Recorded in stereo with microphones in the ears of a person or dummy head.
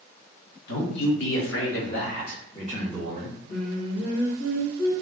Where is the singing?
35° left (ahead or behind), 1.2 m.